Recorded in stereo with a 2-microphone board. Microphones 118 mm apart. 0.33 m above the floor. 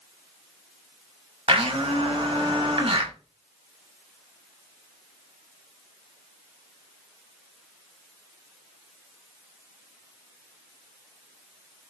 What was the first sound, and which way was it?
A blender, 50° right (ahead or behind).